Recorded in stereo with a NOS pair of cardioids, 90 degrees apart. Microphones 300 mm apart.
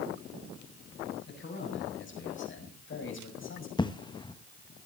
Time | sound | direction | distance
1.3 | a man speaking | 40° left | 8.5 m
3.8 | an explosion | 15° left | 1.2 m